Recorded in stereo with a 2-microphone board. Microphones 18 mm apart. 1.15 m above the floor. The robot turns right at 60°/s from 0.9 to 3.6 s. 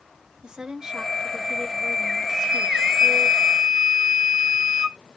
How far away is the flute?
About 1.1 m.